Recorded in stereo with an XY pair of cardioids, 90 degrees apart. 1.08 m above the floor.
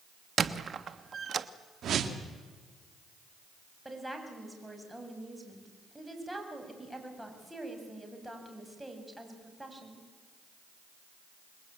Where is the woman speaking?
10° right, 7 m.